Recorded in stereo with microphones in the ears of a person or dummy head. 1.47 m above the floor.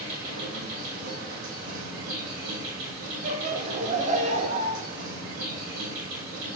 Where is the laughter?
40° right (ahead or behind), 1.0 m.